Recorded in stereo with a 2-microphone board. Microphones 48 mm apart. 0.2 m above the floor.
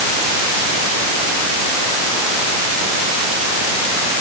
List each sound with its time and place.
Only background noise.